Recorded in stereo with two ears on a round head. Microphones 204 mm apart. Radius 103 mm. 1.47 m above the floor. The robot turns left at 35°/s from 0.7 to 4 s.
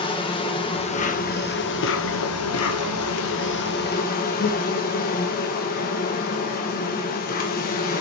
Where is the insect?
155° left, 1.2 m; by 8.0 s 40° left, 1.2 m.